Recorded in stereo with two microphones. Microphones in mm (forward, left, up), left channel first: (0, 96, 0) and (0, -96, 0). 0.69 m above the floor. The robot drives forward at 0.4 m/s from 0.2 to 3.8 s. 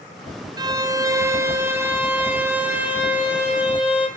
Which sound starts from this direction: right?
A violin, at 0.6 s.